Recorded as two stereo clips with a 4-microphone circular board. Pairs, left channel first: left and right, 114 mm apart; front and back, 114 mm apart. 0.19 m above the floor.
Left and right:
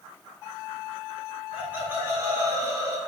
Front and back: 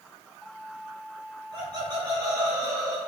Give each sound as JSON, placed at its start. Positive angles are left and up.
{"t": 1.5, "sound": "laughter", "azimuth_deg": -160, "distance_m": 2.0}